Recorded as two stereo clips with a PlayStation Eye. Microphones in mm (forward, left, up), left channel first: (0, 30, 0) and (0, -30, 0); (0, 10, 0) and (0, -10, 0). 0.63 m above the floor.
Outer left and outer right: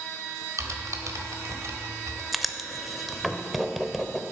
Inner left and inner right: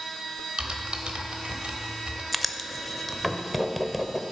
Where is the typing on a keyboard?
75° right (ahead or behind), 1.3 m.